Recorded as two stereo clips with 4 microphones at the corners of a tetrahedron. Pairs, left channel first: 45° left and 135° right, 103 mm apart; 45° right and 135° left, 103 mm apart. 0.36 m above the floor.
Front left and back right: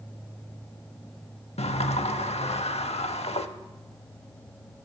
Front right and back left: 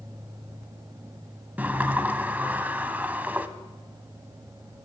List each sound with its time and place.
1.6 s a sliding door: 60° left, 0.5 m